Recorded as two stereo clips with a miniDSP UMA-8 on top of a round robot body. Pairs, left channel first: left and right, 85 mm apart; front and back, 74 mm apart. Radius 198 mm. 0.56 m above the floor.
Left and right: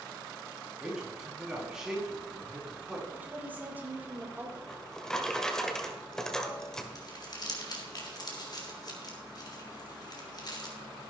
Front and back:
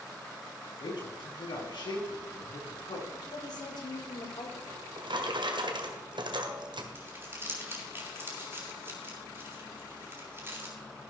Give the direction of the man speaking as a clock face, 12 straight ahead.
12 o'clock.